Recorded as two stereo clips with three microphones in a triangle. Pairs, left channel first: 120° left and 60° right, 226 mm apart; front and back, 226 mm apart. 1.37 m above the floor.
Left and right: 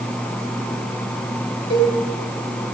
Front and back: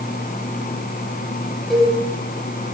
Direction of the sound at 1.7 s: 90° left.